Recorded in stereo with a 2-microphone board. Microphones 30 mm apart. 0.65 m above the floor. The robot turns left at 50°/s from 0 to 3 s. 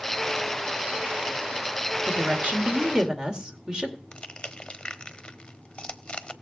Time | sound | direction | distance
2.0 | a woman speaking | 105° right | 2 m
4.1 | crushing | 30° left (ahead or behind) | 0.9 m